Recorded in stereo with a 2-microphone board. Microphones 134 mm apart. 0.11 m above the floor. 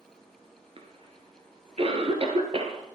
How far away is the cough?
About 1.9 m.